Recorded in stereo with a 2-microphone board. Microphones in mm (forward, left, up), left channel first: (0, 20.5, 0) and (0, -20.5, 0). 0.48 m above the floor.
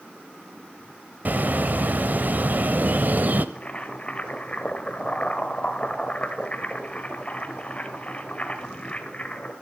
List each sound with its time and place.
1.2 s a bird: 50° right (ahead or behind), 1.0 m
3.5 s boiling: 30° left (ahead or behind), 1.7 m